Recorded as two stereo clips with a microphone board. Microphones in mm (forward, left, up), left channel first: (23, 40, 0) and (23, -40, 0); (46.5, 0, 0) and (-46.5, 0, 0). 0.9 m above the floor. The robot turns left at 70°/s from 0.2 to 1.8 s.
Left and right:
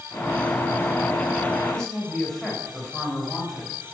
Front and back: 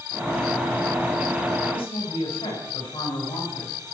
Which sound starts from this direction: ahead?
A woman speaking, at 1.7 s.